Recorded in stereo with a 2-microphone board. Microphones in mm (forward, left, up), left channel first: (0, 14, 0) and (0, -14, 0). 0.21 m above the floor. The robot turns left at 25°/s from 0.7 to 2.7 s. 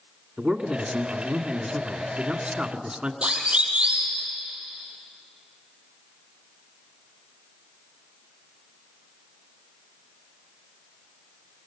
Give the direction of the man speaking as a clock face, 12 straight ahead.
3 o'clock.